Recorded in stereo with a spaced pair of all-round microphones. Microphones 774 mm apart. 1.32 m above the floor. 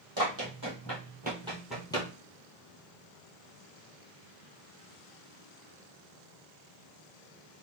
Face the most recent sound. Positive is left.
turn(degrees=10)  # may be behind; listen again after turning